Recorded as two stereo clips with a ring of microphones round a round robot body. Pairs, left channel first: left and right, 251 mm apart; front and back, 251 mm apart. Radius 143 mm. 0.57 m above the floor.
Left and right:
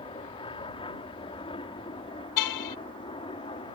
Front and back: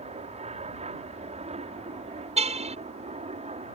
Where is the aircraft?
140° left.